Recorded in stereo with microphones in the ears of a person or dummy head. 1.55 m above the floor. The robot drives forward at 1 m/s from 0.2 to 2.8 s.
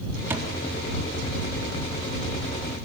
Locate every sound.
0.3 s a thud: 10° right (ahead or behind), 4 m